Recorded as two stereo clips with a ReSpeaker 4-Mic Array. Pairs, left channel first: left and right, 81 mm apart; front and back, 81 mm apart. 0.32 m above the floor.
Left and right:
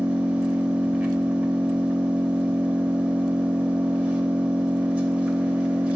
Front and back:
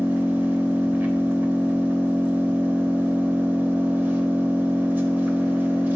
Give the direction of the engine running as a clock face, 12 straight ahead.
5 o'clock.